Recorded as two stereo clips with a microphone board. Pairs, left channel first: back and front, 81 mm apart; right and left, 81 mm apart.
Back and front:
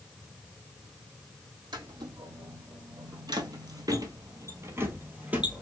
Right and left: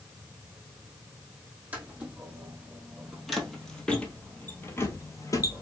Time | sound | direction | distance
1.7 | footsteps | 20° left | 2 m